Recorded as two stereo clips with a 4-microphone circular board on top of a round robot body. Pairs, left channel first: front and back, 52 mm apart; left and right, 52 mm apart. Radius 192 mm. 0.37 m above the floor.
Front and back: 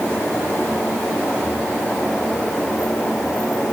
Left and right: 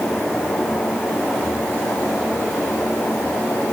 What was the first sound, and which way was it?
Only background noise.